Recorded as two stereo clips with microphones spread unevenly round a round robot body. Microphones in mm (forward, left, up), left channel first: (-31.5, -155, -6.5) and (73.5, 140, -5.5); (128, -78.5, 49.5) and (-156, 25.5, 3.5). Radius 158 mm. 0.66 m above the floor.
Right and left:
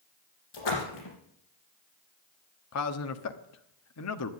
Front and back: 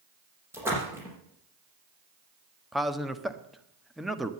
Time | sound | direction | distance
0.5 | a splash | 115° right | 5.5 m
2.7 | a man speaking | 120° right | 1.2 m